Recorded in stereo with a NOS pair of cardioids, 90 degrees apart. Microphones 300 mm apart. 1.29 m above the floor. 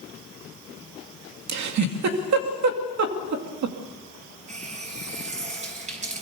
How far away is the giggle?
About 2.5 m.